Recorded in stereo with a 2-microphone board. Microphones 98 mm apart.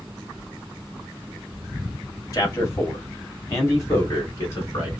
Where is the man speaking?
35° left (ahead or behind), 1.4 m.